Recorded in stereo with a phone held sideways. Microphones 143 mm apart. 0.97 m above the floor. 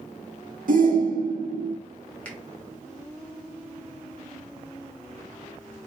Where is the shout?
70° right (ahead or behind), 1.4 m.